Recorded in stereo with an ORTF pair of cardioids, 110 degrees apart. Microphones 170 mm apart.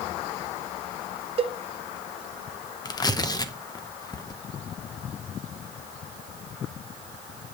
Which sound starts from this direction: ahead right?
A cowbell, at 1.4 s.